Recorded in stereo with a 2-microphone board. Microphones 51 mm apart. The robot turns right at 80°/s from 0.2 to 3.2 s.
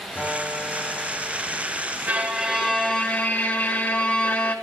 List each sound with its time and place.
0.1 s a guitar: 50° left, 5.5 m; by 2.0 s 165° right, 5.5 m
2.1 s a violin: 50° right, 1.2 m; by 4.5 s 40° left, 1.2 m